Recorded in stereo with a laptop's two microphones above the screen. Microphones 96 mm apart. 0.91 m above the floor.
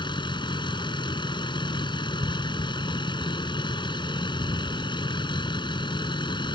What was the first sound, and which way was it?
A vehicle, 55° left (ahead or behind).